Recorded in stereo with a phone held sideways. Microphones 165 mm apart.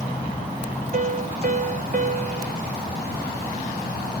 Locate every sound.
0.9 s a piano: 50° right (ahead or behind), 0.7 m